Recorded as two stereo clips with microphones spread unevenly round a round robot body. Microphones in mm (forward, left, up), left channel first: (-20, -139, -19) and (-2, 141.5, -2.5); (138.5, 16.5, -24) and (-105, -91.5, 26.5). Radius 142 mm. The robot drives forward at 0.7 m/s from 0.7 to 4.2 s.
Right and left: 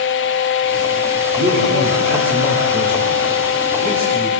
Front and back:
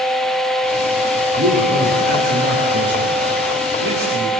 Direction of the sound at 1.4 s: 140° left.